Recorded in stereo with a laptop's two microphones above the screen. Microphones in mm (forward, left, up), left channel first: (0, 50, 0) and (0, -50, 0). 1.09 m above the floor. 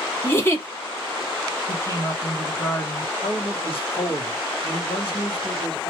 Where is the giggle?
25° left (ahead or behind), 0.8 m.